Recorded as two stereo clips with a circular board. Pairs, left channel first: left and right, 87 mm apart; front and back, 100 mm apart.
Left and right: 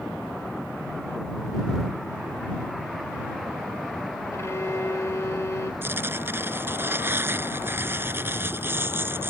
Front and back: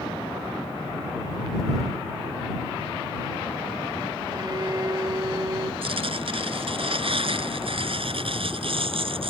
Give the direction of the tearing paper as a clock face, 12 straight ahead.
5 o'clock.